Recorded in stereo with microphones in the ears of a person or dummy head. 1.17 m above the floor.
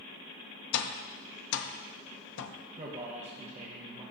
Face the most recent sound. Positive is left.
turn(degrees=-40)  # may be behind; listen again after turning